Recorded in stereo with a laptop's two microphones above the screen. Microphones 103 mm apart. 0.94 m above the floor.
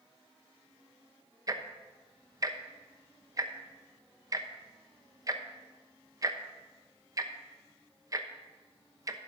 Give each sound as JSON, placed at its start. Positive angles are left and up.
{"t": 1.5, "sound": "ticking", "side_deg": -35, "distance_m": 0.8}